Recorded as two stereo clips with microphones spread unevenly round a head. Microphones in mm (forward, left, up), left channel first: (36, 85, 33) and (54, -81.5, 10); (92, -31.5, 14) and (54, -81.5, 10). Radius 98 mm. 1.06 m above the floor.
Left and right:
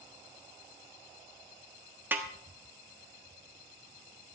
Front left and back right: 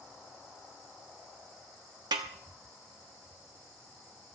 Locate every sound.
2.1 s a snare drum: 165° right, 0.7 m